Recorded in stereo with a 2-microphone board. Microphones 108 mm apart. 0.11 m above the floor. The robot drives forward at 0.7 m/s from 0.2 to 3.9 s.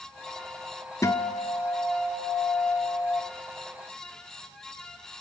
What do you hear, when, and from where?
1.0 s a guitar: 30° left (ahead or behind), 0.6 m; by 3.2 s 10° left (ahead or behind), 1.8 m